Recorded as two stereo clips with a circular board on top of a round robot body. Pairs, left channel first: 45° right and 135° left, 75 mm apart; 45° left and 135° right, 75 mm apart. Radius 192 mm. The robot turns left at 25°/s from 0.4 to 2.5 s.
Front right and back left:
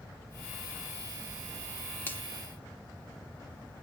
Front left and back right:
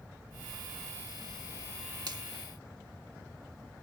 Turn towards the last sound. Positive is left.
turn(degrees=-120)